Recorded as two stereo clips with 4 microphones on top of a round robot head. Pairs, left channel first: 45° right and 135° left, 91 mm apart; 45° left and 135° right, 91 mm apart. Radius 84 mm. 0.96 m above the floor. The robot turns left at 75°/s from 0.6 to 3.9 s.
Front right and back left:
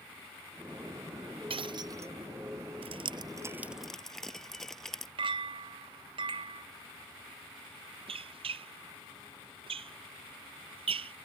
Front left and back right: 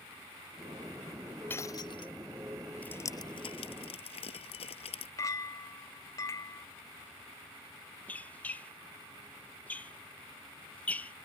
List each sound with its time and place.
1.5 s breaking glass: 115° left; by 2.1 s 65° left
2.8 s dripping: 120° left; by 5.1 s 40° left
5.2 s a clink: 100° left
8.1 s a squeak: 120° left